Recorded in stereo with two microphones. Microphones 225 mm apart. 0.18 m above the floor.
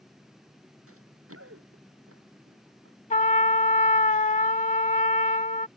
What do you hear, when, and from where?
0.9 s running footsteps: 80° right
3.1 s a trumpet: 35° left (ahead or behind)